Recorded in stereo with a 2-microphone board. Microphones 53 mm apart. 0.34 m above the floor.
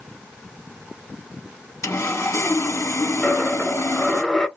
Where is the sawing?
75° left (ahead or behind), 0.7 m.